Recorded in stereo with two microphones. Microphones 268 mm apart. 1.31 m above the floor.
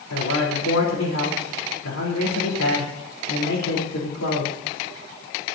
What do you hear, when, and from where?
0.1 s a man speaking: 85° left, 4 m